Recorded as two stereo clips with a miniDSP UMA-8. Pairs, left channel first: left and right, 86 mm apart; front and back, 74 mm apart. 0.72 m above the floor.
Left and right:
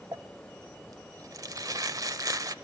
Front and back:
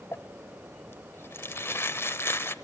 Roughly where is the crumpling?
Ahead right.